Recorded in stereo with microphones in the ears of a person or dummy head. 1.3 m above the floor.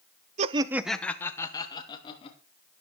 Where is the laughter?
35° right (ahead or behind), 0.8 m; by 2.4 s 30° left (ahead or behind), 2.5 m.